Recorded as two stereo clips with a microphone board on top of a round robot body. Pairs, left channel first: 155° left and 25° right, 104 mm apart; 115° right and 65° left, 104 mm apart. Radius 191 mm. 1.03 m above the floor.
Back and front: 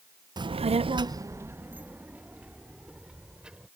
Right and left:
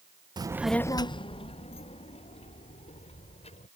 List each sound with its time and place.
0.4 s a child speaking: 20° left; by 3.7 s 105° right